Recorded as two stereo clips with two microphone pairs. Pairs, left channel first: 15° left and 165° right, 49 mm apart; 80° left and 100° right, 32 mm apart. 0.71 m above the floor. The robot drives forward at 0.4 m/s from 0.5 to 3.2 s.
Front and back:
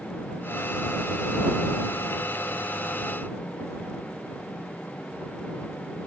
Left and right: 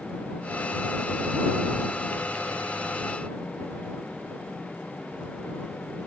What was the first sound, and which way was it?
Only background noise.